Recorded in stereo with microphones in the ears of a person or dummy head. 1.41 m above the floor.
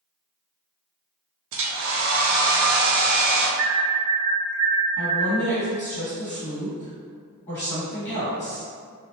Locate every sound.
1.5 s a hair dryer: 75° right (ahead or behind), 0.6 m
3.6 s an alarm: 60° right (ahead or behind), 0.6 m
5.0 s a woman speaking: 15° left (ahead or behind), 1.6 m